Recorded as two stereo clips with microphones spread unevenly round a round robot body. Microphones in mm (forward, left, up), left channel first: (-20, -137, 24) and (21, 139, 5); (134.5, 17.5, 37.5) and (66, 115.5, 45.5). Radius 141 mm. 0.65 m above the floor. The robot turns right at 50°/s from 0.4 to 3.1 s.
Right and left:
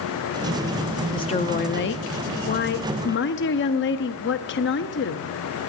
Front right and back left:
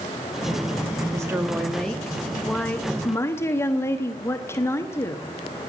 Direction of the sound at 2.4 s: 135° right.